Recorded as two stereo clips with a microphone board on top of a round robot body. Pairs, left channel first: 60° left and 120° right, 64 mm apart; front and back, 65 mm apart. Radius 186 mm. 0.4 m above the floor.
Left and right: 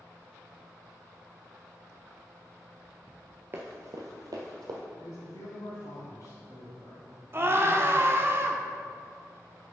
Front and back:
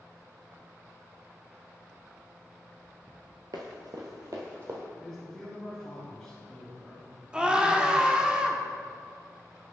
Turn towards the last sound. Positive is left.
turn(degrees=-115)